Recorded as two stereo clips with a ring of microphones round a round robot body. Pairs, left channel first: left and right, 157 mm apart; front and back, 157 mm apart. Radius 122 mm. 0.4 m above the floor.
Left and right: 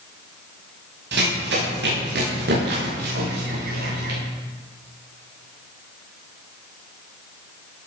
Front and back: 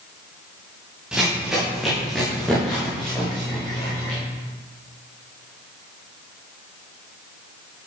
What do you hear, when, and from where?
1.1 s running footsteps: 95° right, 9 m; by 4.2 s 80° right, 11 m